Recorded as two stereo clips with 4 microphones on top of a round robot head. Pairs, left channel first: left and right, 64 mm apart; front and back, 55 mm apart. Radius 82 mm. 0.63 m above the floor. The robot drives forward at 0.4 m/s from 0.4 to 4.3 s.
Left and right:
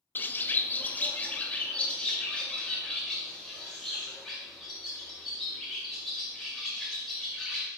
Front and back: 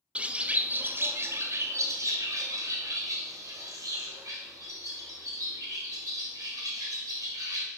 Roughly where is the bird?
Behind left.